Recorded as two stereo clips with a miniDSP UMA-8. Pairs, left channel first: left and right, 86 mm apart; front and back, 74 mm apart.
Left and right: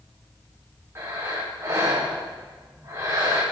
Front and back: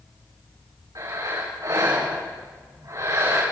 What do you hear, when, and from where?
0.9 s breathing: 145° right, 8 m